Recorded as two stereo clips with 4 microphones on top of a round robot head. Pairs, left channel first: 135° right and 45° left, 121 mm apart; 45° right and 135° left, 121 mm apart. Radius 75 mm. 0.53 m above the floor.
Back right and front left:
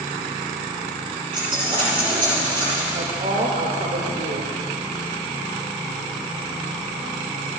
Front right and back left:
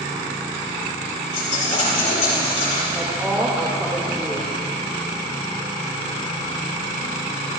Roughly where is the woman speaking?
Ahead left.